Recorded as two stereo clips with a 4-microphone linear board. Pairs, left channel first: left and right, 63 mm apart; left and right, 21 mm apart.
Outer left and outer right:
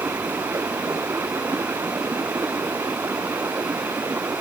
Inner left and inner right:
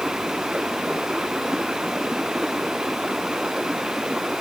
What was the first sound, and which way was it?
Running water, 50° right (ahead or behind).